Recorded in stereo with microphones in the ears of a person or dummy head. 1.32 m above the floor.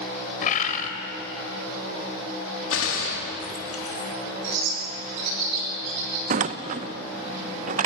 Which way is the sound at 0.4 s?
45° left (ahead or behind).